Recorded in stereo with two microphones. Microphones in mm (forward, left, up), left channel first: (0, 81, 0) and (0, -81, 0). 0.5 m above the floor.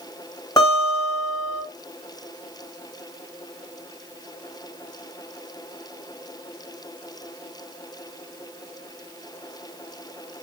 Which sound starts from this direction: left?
A guitar, at 0.6 s.